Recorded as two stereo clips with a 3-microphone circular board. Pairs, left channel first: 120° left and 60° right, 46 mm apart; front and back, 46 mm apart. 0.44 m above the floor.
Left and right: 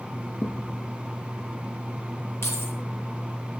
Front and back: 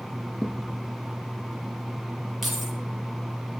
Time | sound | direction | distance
0.4 | a thud | 85° left | 5.5 m
2.4 | keys jangling | 95° left | 8 m